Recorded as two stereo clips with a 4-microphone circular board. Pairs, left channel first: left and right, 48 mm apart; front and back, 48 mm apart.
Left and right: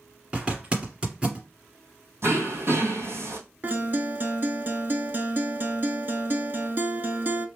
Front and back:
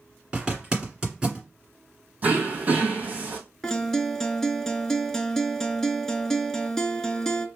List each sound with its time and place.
0.3 s a zipper: 120° right, 1.8 m
2.2 s throat clearing: 120° right, 1.6 m
3.6 s a guitar: 75° right, 0.5 m